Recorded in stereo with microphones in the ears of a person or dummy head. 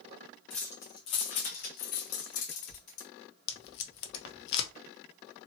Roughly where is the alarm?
I don't hear an alarm.